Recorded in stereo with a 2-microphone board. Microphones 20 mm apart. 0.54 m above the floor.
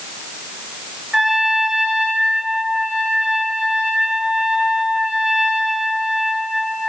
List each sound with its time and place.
1.1 s a trumpet: 55° right (ahead or behind), 5 m